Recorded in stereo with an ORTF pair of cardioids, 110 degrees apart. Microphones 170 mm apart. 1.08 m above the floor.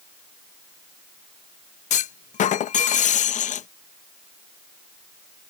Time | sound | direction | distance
1.9 | a clunk | 45° left | ?